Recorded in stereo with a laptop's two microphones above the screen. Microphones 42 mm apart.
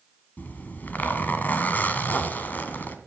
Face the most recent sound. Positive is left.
turn(degrees=45)  # may be behind; listen again after turning